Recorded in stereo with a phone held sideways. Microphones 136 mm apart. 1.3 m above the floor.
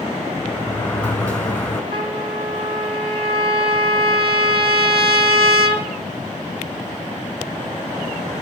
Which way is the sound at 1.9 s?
45° right (ahead or behind).